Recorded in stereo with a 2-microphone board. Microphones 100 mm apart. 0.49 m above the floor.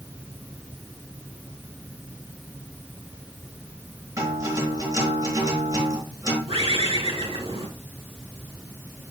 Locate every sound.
4.2 s a guitar: 35° right (ahead or behind), 4.5 m
6.5 s a bird: 80° right, 2.5 m